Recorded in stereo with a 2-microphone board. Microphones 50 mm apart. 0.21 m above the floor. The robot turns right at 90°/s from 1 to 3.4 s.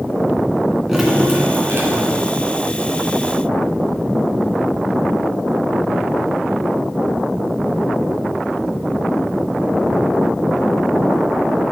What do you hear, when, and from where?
0.9 s dripping: 175° right, 2.5 m; by 2.4 s 50° right, 2.5 m